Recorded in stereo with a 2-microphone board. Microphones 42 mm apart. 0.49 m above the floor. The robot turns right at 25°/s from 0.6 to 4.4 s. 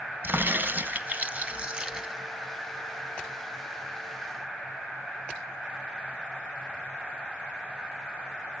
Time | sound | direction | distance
0.2 | a crack | 50° right | 1.9 m